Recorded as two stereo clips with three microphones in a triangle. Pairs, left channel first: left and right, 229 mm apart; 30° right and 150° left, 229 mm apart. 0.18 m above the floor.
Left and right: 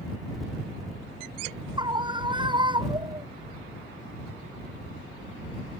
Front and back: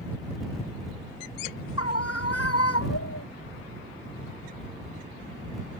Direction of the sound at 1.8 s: 20° right.